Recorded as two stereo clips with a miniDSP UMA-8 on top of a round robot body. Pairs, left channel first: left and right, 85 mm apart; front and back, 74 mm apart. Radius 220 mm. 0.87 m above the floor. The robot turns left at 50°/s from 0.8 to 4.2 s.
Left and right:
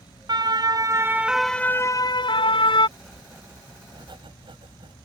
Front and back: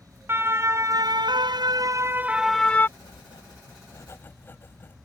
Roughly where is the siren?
Behind right.